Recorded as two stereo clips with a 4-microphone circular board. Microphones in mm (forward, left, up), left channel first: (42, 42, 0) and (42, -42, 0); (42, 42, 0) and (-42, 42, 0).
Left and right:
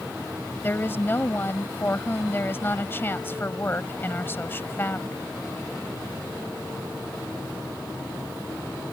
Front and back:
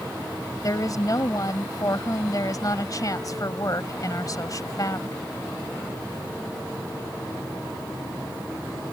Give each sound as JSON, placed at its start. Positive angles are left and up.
{"t": 0.6, "sound": "a woman speaking", "azimuth_deg": 30}